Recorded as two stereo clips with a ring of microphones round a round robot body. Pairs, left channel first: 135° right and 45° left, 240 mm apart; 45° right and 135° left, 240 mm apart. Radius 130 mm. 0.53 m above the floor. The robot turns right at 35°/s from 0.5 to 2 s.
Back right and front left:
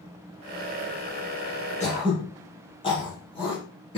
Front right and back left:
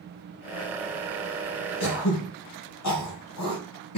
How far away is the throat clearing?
About 4.5 m.